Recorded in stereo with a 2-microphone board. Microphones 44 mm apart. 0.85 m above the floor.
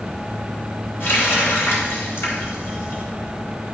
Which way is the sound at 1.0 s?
75° left (ahead or behind).